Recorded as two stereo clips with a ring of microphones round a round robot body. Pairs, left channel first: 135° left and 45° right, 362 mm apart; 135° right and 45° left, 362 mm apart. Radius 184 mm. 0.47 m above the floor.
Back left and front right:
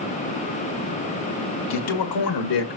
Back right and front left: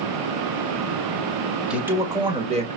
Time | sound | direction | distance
1.7 | a man speaking | 130° left | 1.7 m